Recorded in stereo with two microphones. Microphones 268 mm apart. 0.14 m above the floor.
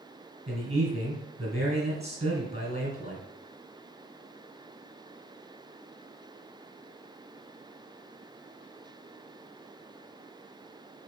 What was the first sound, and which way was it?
A man speaking, 25° right (ahead or behind).